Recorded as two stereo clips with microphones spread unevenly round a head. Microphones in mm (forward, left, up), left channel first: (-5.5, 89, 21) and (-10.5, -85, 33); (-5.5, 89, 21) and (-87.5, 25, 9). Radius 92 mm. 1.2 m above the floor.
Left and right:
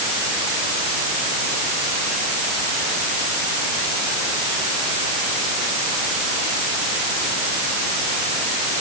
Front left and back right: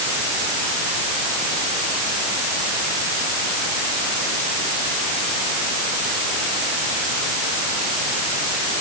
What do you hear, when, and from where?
Only background noise.